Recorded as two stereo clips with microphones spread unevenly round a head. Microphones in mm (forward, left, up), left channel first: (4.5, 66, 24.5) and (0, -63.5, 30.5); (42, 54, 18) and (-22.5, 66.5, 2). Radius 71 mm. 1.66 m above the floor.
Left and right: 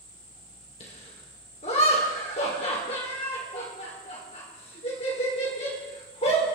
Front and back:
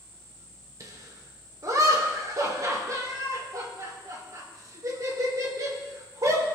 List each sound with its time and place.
0.8 s laughter: 130° left, 5 m